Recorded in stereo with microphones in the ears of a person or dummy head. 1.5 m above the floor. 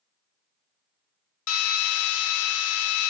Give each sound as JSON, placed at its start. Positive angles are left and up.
{"t": 1.5, "sound": "a drill", "side_deg": 70, "distance_m": 0.7}